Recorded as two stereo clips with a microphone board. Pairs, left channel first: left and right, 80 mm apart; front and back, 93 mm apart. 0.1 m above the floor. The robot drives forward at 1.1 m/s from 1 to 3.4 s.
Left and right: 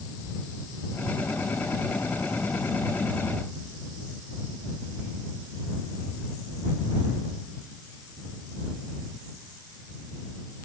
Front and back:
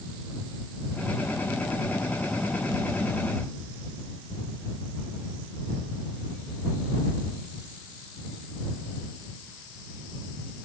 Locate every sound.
Only background noise.